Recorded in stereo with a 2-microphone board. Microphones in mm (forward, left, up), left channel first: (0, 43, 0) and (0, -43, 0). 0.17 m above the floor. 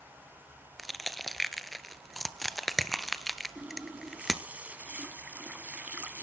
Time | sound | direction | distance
0.8 | crushing | centre (ahead or behind) | 0.7 m
3.5 | a running tap | 20° right (ahead or behind) | 0.7 m